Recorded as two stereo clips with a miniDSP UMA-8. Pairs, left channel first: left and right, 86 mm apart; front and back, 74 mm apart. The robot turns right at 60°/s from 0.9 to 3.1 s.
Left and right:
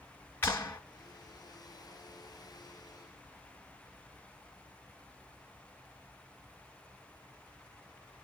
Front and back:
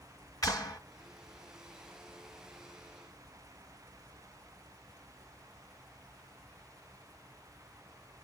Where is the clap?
30° left, 2.5 m.